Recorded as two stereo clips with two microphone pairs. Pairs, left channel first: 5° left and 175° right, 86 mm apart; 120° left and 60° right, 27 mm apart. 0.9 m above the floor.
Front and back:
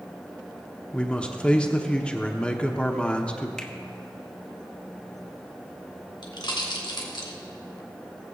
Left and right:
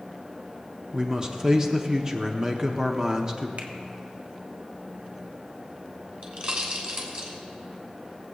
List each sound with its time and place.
0.9 s a man speaking: 60° right, 0.8 m
3.6 s a finger snap: 85° right, 1.0 m
6.2 s a pop: 20° right, 2.5 m